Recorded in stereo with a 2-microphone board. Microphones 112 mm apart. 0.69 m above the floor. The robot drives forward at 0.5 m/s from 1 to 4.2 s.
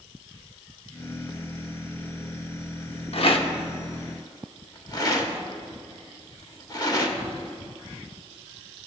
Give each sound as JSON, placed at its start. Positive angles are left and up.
{"t": 3.1, "sound": "a rattle", "side_deg": 60, "distance_m": 0.8}